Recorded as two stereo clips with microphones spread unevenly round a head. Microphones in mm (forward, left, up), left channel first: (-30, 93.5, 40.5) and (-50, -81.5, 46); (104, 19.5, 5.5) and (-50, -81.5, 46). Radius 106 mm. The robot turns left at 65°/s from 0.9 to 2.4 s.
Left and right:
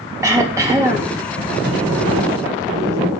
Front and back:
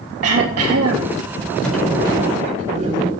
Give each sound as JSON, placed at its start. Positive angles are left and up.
{"t": 0.2, "sound": "throat clearing", "azimuth_deg": -170, "distance_m": 3.5}
{"t": 1.6, "sound": "a sliding door", "azimuth_deg": -55, "distance_m": 4.5}